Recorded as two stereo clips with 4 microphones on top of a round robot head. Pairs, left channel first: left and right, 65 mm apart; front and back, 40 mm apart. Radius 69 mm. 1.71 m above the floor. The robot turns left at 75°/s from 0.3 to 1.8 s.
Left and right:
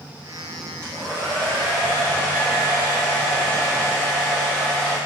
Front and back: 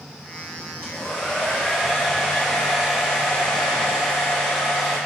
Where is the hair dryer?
20° right, 0.6 m; by 5.0 s 95° right, 0.6 m.